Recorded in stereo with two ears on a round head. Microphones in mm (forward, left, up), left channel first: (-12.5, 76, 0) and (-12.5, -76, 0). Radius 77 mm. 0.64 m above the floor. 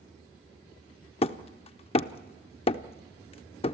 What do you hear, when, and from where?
1.2 s hammering: 35° left (ahead or behind), 0.6 m